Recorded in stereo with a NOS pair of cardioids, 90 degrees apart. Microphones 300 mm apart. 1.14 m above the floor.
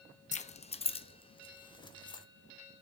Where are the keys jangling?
25° left, 0.6 m; by 2.2 s 15° left, 1.6 m.